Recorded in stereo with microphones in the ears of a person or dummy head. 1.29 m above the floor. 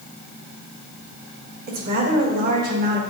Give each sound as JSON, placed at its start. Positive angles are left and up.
{"t": 1.7, "sound": "a woman speaking", "side_deg": -45, "distance_m": 1.3}